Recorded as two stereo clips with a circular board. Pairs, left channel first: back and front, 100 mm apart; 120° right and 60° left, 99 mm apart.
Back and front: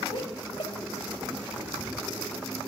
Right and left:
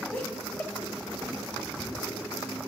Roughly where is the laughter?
Behind.